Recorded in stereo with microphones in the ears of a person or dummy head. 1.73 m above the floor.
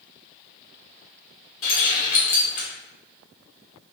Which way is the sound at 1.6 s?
45° left (ahead or behind).